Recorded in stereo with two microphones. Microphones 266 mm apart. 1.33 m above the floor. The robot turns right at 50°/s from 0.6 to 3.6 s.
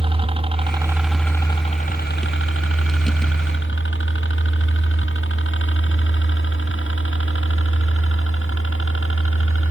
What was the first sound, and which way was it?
A helicopter, 20° right (ahead or behind).